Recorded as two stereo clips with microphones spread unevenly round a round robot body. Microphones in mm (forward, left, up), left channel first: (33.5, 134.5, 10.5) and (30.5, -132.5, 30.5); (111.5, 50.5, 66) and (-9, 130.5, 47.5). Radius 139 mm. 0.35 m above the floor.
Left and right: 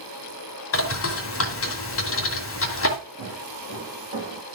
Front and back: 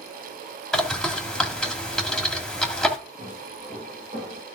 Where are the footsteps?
145° right, 5 m; by 4.4 s 140° right, 3.5 m.